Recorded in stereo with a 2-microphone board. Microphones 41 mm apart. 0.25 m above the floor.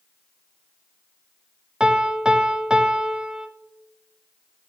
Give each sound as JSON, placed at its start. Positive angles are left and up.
{"t": 1.8, "sound": "a piano", "side_deg": -20, "distance_m": 0.9}